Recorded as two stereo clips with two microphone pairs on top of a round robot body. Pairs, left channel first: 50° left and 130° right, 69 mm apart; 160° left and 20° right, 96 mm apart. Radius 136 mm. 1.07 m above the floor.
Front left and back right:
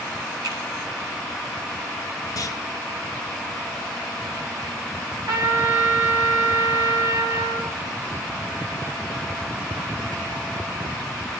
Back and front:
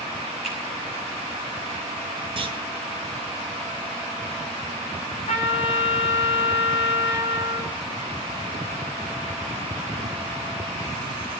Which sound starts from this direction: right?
A finger snap, at 0.4 s.